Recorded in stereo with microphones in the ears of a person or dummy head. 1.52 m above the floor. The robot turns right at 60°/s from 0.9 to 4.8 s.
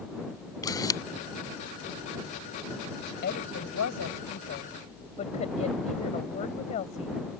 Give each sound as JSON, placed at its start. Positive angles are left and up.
{"t": 0.6, "sound": "a camera shutter", "side_deg": 20}
{"t": 3.2, "sound": "a woman speaking", "azimuth_deg": 50}